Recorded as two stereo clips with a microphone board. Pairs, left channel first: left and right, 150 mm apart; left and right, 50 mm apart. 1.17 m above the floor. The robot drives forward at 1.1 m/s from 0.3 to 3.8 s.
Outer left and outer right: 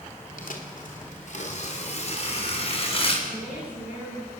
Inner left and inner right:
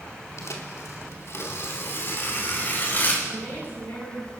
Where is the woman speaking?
60° left (ahead or behind), 10 m; by 4.3 s 55° left (ahead or behind), 10 m.